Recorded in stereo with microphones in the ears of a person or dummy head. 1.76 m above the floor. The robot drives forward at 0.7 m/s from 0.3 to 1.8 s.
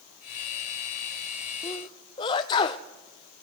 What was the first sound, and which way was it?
A sneeze, 25° left (ahead or behind).